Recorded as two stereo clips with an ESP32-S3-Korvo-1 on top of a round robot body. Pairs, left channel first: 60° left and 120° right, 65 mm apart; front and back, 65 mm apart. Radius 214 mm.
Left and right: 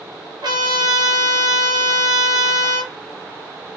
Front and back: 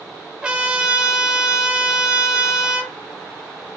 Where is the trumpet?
105° right, 0.5 m.